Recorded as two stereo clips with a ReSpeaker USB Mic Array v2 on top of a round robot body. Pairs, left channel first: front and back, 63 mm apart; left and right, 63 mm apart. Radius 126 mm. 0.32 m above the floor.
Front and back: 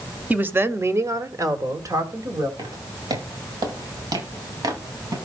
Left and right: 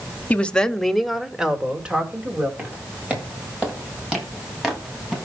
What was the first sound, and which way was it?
A woman speaking, 140° left.